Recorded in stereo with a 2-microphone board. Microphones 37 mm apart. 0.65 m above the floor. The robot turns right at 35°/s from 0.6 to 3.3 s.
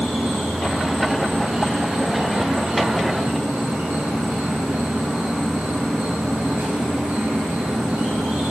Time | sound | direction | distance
0.0 | an insect | 160° right | 4.5 m